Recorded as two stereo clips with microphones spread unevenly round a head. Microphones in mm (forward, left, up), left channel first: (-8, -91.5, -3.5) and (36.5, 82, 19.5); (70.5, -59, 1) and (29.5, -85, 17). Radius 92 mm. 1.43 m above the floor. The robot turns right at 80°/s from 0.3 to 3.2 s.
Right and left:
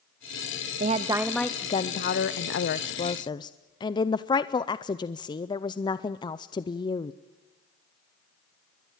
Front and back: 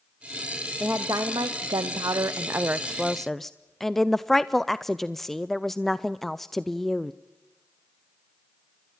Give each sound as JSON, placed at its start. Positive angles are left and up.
{"t": 0.8, "sound": "a woman speaking", "azimuth_deg": 125, "distance_m": 0.5}